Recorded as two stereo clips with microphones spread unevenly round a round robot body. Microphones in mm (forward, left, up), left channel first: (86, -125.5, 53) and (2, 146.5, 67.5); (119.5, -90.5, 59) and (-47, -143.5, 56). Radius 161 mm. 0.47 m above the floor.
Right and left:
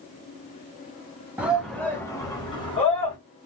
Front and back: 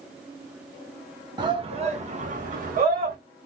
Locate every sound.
1.4 s a shout: 170° right, 0.7 m; by 3.2 s 140° right, 1.3 m